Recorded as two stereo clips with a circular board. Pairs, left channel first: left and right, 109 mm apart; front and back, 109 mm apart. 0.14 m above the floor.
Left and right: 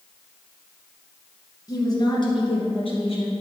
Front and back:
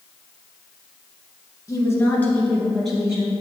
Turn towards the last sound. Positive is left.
turn(degrees=100)